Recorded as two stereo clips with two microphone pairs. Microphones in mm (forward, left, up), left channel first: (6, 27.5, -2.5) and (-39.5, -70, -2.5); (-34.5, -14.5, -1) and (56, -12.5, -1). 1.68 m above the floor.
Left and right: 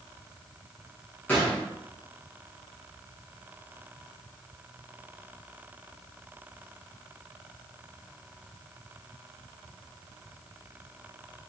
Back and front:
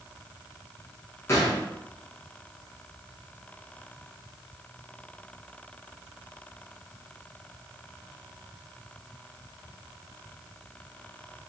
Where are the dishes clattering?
No dishes clattering in this recording.